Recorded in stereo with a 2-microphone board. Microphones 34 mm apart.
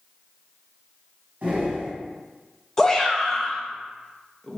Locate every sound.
1.4 s breathing: 60° right (ahead or behind), 1.6 m
2.8 s a shout: 15° left (ahead or behind), 0.5 m